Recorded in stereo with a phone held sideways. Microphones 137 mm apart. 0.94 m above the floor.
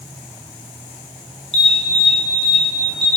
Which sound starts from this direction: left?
An alarm, at 1.5 s.